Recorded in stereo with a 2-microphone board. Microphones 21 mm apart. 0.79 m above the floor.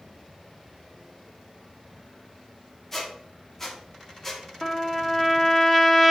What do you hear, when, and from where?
2.9 s a squeak: 15° left (ahead or behind), 1.2 m
4.6 s a trumpet: 15° left (ahead or behind), 0.8 m